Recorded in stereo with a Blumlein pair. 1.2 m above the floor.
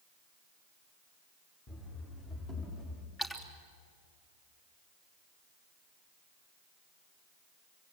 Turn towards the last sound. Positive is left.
turn(degrees=15)